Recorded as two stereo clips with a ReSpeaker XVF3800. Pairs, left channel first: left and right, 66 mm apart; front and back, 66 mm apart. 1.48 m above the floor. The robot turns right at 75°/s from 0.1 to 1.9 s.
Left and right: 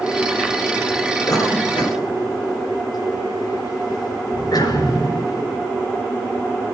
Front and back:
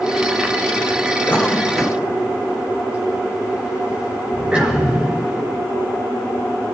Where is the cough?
60° left, 7 m; by 5.4 s 110° left, 7 m.